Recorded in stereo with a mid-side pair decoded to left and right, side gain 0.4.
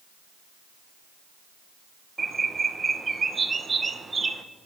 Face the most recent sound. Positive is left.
turn(degrees=-35)